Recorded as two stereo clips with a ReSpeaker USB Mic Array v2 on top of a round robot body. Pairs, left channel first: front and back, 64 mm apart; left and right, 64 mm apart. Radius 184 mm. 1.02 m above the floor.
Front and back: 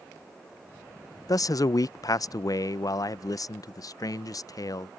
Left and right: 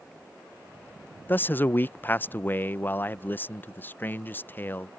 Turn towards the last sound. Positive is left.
turn(degrees=30)